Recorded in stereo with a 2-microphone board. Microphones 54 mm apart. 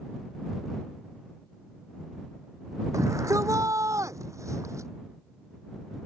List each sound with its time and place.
2.9 s a shout: 80° right; by 4.9 s 75° right (ahead or behind)